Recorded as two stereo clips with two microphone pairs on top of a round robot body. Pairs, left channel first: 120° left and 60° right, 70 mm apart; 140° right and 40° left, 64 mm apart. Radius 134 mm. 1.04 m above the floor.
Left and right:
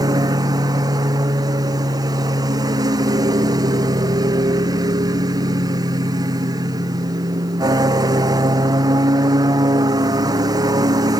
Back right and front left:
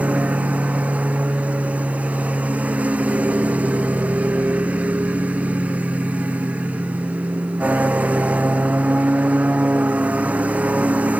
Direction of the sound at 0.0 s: 30° right.